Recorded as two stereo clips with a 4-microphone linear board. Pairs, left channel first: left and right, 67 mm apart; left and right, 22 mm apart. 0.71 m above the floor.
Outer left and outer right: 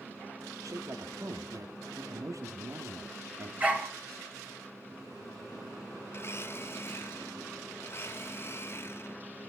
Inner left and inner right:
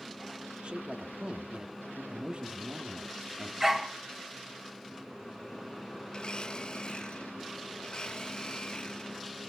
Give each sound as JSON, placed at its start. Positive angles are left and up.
{"t": 0.6, "sound": "a man speaking", "side_deg": -60, "distance_m": 1.5}
{"t": 3.6, "sound": "a dog barking", "side_deg": -25, "distance_m": 3.0}
{"t": 6.1, "sound": "a blender", "side_deg": 35, "distance_m": 1.3}